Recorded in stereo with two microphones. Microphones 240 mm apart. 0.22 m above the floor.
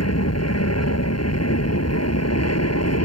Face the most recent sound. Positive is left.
turn(degrees=70)  # may be behind; listen again after turning